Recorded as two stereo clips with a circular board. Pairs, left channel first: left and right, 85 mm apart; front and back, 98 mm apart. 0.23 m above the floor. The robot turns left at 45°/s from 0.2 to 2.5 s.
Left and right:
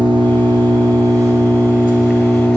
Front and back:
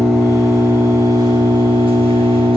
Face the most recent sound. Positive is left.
turn(degrees=170)